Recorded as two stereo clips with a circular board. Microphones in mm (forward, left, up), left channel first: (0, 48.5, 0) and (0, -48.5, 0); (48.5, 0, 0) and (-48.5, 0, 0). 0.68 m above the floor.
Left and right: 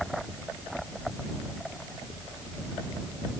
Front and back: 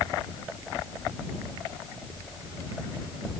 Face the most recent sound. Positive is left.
No sound to turn to.